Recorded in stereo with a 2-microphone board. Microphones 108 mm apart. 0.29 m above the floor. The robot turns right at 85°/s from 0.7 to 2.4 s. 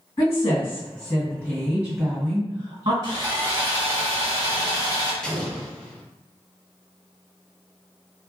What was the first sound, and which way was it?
A woman speaking, 115° left.